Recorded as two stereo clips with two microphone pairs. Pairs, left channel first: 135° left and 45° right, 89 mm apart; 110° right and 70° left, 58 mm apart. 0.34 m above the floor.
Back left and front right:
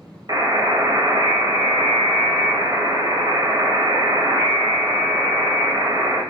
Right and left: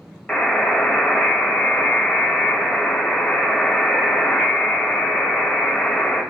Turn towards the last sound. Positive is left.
turn(degrees=-45)